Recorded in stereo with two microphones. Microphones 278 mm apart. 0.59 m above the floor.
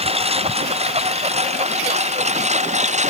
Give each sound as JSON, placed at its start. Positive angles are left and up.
{"t": 0.0, "sound": "a lawn mower", "side_deg": -20}